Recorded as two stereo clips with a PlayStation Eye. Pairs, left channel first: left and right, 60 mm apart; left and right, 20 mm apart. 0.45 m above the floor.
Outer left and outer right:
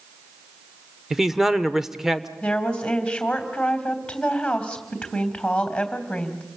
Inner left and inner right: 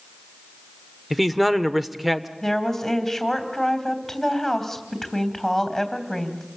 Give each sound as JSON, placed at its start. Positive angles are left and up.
{"t": 1.1, "sound": "a man speaking", "side_deg": -5, "distance_m": 1.0}
{"t": 2.4, "sound": "a woman speaking", "side_deg": 15, "distance_m": 3.5}